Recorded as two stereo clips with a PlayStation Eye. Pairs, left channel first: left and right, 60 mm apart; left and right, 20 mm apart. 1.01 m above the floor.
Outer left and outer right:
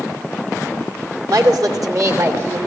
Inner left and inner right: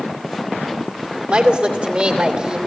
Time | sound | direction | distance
1.3 | a woman speaking | 70° right (ahead or behind) | 2.5 m